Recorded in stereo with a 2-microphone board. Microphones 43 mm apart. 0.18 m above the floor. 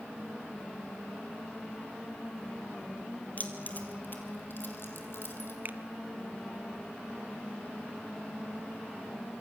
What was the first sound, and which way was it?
Keys jangling, 40° left (ahead or behind).